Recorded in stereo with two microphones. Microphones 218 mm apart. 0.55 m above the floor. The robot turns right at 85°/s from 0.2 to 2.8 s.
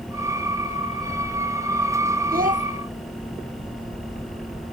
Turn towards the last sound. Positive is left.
turn(degrees=-40)